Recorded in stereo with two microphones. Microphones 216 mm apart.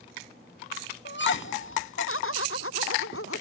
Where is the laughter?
55° left (ahead or behind); by 3.4 s 80° left.